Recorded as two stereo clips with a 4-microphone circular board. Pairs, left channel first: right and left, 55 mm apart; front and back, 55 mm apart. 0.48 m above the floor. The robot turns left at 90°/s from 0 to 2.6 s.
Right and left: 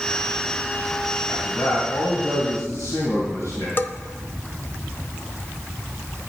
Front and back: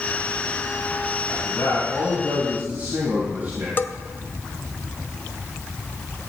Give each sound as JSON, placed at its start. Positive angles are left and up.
{"t": 1.3, "sound": "a man speaking", "azimuth_deg": -10, "distance_m": 3.5}
{"t": 3.8, "sound": "a bell", "azimuth_deg": -45, "distance_m": 0.7}